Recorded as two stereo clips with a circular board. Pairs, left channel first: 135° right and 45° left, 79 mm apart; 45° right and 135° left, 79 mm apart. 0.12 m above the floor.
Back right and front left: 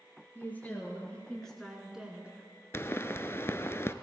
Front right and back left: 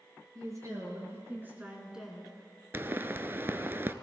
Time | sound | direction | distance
0.3 | a woman speaking | 165° left | 2.5 m
2.7 | a pop | 175° right | 0.5 m